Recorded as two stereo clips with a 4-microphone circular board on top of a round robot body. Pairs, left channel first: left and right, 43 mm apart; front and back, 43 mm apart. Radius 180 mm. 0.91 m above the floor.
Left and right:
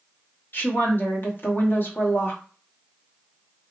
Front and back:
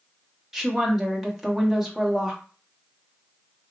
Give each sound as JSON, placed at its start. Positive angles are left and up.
{"t": 0.5, "sound": "a woman speaking", "azimuth_deg": 95, "distance_m": 1.2}